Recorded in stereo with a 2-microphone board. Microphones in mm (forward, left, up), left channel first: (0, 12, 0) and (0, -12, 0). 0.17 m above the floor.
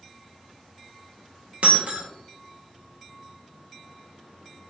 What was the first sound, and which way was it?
Breaking glass, 75° right (ahead or behind).